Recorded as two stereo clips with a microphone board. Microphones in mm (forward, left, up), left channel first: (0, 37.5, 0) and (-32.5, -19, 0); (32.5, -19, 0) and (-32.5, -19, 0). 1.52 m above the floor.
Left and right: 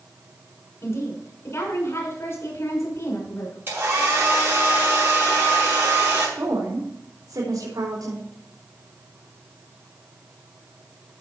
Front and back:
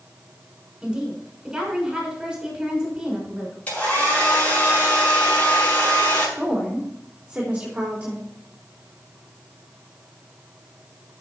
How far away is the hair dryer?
About 6.5 m.